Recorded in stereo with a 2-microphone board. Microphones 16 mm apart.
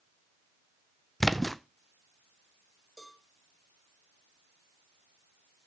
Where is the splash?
5° left (ahead or behind), 0.7 m.